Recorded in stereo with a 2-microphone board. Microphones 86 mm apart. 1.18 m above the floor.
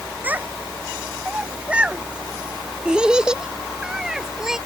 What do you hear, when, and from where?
0.2 s a child speaking: 15° right (ahead or behind); by 4.6 s 5° right (ahead or behind)